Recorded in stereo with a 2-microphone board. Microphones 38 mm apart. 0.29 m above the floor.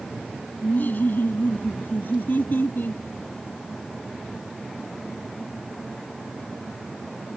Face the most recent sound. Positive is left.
turn(degrees=65)  # may be behind; listen again after turning